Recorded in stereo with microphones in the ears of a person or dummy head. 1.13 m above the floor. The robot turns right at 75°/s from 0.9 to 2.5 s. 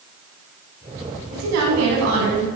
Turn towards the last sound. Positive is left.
turn(degrees=-40)